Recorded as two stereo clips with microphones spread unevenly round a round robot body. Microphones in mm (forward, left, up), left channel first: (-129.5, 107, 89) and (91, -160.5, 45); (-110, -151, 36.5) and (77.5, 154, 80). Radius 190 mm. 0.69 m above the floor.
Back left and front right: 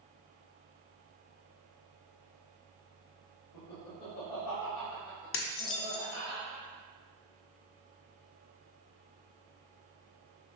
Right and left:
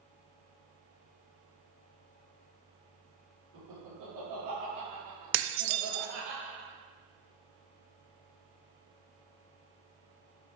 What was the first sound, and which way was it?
Laughter, 105° left.